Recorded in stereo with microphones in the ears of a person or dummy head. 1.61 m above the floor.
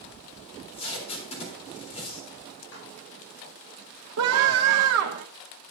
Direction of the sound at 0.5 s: 40° left (ahead or behind).